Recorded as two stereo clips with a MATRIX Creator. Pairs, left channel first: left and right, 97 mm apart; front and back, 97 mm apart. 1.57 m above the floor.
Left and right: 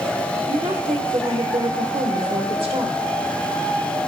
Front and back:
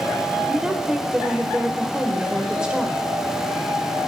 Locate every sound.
0.5 s a woman speaking: 100° right, 1.2 m